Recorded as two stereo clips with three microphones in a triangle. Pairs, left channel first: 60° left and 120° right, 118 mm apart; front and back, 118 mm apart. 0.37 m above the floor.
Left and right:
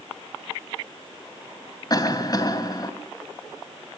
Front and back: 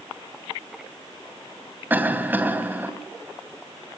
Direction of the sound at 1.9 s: 110° left.